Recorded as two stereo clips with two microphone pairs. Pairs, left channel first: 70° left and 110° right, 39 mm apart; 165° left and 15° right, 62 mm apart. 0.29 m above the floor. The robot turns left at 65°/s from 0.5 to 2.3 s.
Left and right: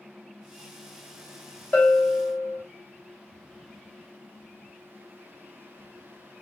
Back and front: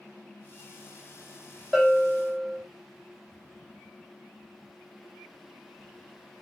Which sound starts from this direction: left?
A bell, at 1.7 s.